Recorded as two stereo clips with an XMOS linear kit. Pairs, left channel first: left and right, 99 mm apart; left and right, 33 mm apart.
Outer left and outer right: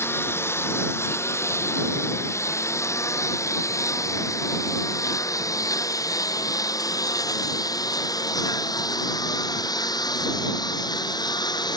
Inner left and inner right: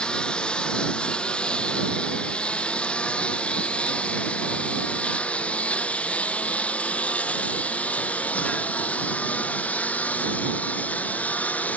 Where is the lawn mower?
25° left (ahead or behind); by 11.8 s 45° left (ahead or behind).